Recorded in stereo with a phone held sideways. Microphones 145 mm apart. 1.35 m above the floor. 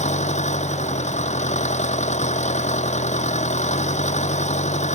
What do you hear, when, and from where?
0.0 s an engine running: 50° left (ahead or behind)